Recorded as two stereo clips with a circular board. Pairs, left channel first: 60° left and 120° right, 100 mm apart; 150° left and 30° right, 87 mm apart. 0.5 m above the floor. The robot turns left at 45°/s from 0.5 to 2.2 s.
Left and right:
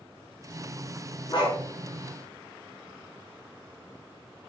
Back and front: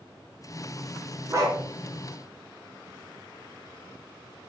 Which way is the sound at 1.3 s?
25° left.